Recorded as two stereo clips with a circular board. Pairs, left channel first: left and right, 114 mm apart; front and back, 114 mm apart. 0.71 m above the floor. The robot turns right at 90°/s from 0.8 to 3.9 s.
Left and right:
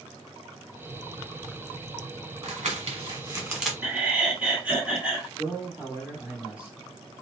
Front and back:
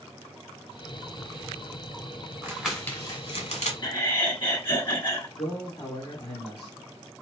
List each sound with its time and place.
2.4 s crumpling: 115° right, 1.5 m; by 3.7 s straight ahead, 1.5 m
3.8 s laughter: 25° right, 1.4 m; by 5.3 s 20° right, 1.4 m
5.4 s a man speaking: 20° right, 2.5 m